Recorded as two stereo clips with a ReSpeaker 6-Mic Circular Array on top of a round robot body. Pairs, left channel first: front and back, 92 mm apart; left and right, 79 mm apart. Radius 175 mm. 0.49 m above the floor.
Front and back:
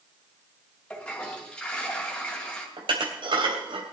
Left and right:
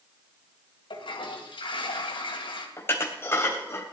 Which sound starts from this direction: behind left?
Dishes clattering, at 2.8 s.